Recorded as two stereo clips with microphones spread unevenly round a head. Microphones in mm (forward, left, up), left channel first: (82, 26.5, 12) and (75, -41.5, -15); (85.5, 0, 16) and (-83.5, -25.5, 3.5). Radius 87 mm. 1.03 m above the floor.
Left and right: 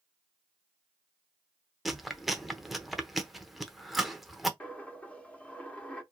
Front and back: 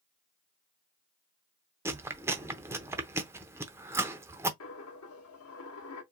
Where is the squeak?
No squeak in this recording.